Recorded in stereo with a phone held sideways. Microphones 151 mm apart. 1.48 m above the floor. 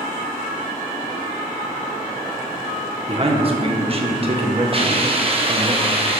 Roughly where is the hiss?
Right.